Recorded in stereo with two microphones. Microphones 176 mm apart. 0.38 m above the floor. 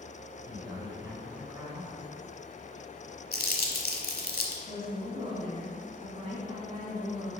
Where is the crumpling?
60° left (ahead or behind), 1.1 m.